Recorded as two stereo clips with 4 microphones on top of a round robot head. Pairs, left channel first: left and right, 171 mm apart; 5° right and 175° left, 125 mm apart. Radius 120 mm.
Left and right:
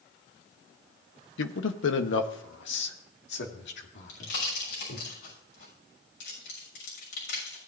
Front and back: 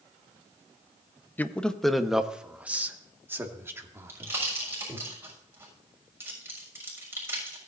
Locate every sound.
1.4 s a man speaking: 70° left, 1.0 m; by 5.1 s 110° left, 3 m
4.1 s a pop: 105° left, 6.5 m